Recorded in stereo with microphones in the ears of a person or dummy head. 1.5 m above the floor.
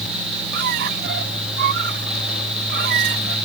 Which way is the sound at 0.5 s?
55° right (ahead or behind).